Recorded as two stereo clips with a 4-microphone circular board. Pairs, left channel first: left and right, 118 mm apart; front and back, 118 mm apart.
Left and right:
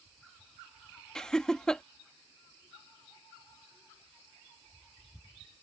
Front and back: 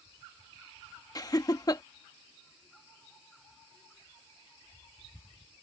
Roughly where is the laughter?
Ahead.